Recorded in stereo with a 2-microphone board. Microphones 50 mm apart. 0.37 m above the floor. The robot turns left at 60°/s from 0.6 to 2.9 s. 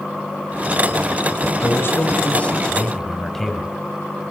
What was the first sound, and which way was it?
A man speaking, 80° left.